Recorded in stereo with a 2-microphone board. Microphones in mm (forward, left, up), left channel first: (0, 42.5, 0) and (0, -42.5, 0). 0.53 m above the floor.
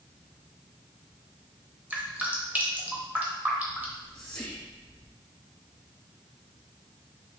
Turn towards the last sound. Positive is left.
turn(degrees=15)  # may be behind; listen again after turning